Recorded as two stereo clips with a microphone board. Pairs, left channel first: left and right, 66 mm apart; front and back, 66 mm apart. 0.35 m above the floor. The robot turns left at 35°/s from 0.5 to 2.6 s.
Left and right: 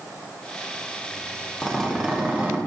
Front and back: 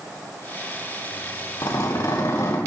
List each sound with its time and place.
1.6 s a zipper: straight ahead, 3.5 m; by 2.6 s 35° right, 3.5 m